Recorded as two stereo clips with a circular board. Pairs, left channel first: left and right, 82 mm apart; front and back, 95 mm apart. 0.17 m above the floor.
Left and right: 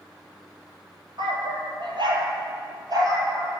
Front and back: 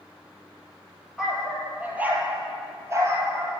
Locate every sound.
1.2 s a dog barking: 95° right, 2 m; by 3.5 s 130° right, 2 m